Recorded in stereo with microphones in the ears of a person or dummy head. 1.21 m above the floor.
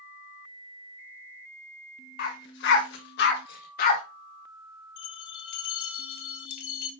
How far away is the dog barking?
About 1.5 m.